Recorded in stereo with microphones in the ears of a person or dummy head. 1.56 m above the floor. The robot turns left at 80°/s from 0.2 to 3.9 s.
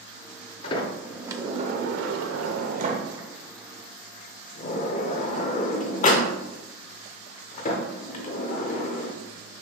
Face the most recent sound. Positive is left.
turn(degrees=50)  # may be behind; listen again after turning